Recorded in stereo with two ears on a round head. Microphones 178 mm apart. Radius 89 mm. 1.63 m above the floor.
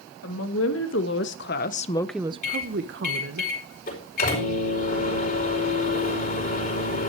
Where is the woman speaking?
75° left (ahead or behind), 2.5 m; by 3.4 s 70° right (ahead or behind), 1.7 m.